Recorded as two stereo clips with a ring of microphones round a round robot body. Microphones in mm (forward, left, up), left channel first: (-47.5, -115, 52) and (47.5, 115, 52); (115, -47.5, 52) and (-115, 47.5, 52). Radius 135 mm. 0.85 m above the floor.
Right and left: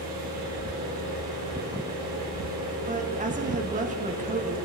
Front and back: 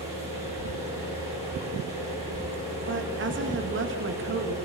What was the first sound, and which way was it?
An engine running, 90° left.